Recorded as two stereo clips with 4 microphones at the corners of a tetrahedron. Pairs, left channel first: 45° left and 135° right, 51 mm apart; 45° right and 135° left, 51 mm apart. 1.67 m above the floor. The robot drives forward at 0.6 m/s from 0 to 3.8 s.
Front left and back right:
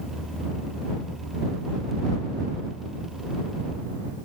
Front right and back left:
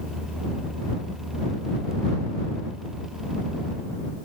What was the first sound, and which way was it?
Only background noise.